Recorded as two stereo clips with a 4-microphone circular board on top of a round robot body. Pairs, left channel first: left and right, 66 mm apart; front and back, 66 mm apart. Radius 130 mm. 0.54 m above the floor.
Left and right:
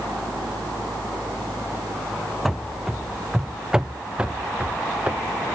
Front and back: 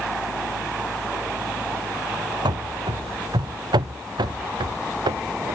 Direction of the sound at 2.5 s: Straight behind.